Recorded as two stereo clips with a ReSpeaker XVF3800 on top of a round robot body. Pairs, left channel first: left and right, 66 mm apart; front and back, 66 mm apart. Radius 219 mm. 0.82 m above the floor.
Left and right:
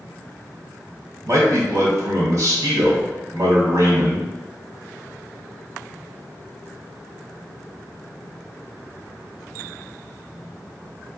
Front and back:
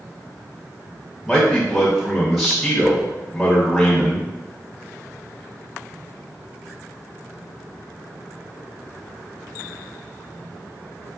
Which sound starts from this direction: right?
A man speaking, at 1.2 s.